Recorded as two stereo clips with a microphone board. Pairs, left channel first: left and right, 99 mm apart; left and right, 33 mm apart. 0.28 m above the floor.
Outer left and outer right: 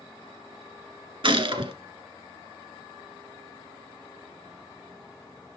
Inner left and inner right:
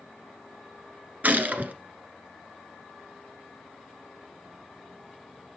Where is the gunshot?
65° right (ahead or behind), 1.4 m.